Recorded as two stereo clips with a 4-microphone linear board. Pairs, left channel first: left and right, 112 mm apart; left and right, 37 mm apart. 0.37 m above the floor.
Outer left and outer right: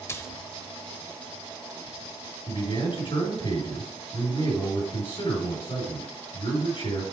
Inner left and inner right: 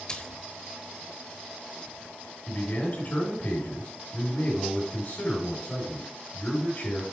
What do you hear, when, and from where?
0.1 s a splash: 25° left (ahead or behind), 0.8 m
2.5 s a man speaking: 50° left (ahead or behind), 5 m